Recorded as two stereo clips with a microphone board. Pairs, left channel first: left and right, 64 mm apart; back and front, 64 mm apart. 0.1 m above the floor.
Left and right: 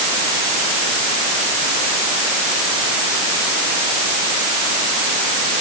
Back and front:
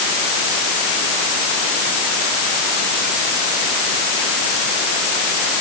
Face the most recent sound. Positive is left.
No sound to turn to.